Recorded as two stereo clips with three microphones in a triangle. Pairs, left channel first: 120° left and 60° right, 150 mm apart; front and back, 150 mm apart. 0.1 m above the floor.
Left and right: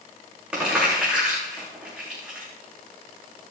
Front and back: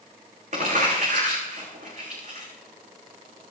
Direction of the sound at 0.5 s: 140° right.